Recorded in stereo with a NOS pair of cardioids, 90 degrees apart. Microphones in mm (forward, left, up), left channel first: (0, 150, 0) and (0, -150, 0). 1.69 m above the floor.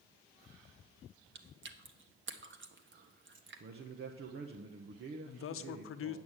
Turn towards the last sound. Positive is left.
turn(degrees=45)